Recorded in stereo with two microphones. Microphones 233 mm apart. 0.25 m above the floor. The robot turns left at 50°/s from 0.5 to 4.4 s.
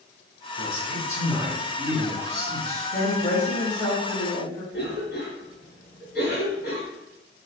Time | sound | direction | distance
0.6 | a man speaking | 50° right | 1.2 m
2.9 | a woman speaking | 90° left | 1.7 m
4.7 | a cough | 40° left (ahead or behind) | 1.9 m